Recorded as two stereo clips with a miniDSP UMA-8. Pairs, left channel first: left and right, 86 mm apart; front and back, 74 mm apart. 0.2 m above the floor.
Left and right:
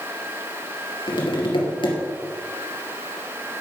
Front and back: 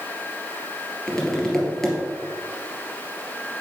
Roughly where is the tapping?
Left.